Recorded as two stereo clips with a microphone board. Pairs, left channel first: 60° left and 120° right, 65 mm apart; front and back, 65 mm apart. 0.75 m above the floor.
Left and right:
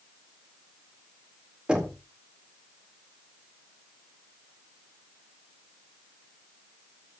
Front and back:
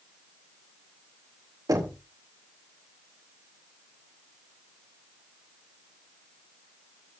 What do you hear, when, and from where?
1.7 s knocking: 165° left, 2 m